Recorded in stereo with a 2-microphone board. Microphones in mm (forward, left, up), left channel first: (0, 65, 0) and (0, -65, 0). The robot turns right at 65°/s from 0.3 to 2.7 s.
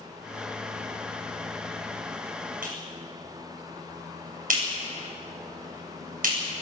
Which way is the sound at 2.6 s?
80° right.